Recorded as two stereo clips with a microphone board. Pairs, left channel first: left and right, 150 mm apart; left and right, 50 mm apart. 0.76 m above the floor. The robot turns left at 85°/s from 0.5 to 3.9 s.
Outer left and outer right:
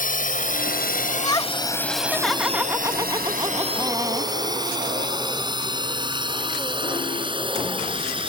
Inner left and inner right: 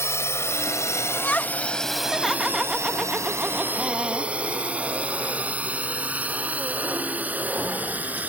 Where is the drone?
65° left (ahead or behind); by 8.3 s 35° right (ahead or behind).